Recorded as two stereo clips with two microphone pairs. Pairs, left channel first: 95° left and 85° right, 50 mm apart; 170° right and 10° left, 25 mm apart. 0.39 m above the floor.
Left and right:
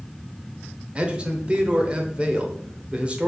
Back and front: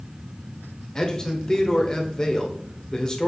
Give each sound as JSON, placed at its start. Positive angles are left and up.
{"t": 0.9, "sound": "a man speaking", "azimuth_deg": -130, "distance_m": 1.0}